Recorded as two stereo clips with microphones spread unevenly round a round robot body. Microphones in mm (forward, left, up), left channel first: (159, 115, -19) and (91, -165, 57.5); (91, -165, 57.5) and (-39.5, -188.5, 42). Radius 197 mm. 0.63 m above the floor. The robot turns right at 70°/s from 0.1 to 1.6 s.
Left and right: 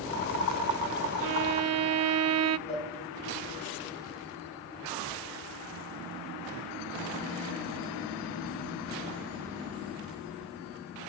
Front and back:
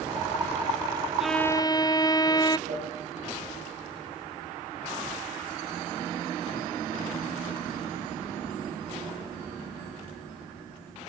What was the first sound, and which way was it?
A violin, 85° right.